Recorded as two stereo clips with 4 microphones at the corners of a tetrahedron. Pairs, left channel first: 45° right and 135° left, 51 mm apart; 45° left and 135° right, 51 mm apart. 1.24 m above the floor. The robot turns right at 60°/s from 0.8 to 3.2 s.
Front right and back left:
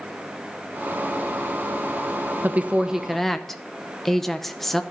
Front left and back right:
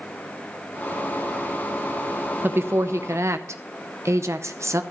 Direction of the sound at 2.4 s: 175° right.